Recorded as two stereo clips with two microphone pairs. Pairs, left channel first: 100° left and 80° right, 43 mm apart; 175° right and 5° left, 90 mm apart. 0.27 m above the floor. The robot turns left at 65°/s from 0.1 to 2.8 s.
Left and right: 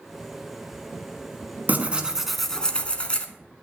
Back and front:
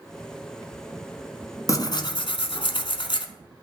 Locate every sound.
1.7 s tearing paper: 120° right, 0.6 m; by 3.3 s 165° left, 0.6 m